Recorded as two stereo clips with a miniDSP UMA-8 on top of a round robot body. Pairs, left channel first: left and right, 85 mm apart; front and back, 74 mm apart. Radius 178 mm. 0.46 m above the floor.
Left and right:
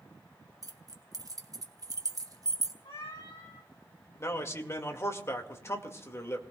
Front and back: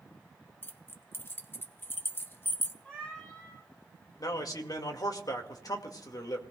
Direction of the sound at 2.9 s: 75° left.